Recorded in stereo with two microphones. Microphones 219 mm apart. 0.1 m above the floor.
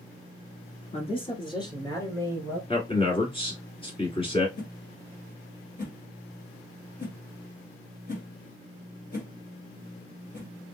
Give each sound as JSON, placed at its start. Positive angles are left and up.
{"t": 0.9, "sound": "a man speaking", "side_deg": 25, "distance_m": 1.2}
{"t": 2.7, "sound": "a man speaking", "side_deg": 25, "distance_m": 1.5}
{"t": 4.6, "sound": "a whoosh", "side_deg": 35, "distance_m": 1.4}